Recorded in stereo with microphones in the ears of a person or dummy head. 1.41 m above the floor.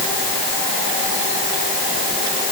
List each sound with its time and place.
Only background noise.